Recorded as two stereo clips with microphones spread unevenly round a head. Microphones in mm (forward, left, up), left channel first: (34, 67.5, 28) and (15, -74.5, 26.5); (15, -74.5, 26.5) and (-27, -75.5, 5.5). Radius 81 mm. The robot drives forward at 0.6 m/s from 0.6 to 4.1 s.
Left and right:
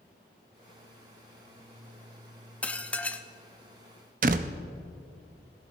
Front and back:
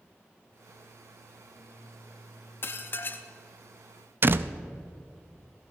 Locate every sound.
2.6 s dishes clattering: straight ahead, 1.0 m
4.2 s a door slam: 130° right, 0.6 m